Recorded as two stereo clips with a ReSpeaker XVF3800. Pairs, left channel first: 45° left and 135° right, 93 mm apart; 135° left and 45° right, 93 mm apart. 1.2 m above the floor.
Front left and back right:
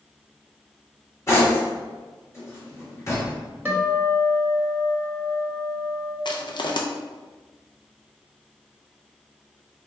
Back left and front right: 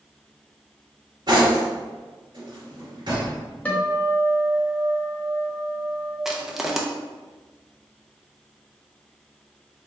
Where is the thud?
No thud in this recording.